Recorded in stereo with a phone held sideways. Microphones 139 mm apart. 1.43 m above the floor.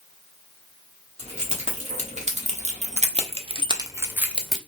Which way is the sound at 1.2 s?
50° right (ahead or behind).